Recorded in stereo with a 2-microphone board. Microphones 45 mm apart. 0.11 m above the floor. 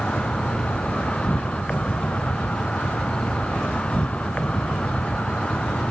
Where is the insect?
25° left (ahead or behind).